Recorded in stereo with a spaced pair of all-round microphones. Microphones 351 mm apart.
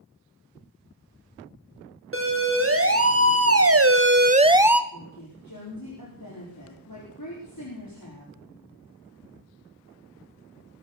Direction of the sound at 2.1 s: 35° right (ahead or behind).